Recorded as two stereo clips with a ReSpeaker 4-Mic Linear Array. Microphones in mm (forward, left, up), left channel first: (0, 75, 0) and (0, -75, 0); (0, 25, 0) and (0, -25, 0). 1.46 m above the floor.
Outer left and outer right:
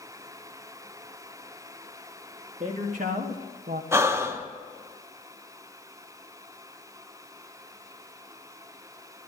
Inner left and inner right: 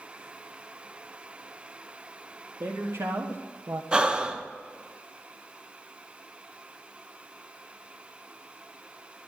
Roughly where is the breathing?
Centre.